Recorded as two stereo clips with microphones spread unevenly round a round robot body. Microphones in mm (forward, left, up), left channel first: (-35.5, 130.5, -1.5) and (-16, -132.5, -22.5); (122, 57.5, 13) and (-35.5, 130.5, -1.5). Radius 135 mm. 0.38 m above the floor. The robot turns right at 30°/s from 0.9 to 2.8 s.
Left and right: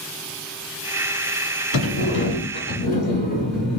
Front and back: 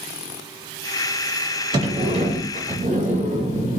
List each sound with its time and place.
1.7 s a sliding door: 110° left, 1.4 m; by 3.8 s 140° left, 1.4 m